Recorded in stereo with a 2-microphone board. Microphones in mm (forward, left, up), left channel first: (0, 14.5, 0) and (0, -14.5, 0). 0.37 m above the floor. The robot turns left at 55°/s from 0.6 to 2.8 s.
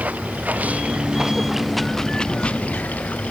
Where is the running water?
120° right; by 3.3 s 120° left.